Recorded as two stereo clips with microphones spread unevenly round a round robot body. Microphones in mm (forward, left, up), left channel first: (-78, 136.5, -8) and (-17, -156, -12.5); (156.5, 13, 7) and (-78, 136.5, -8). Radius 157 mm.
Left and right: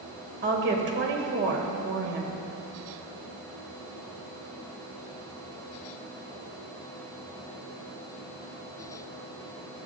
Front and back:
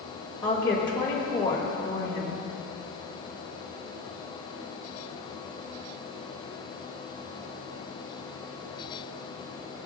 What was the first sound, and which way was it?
A woman speaking, 95° right.